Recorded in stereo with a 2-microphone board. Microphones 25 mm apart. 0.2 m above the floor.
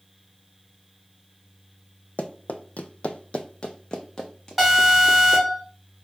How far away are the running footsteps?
About 0.6 m.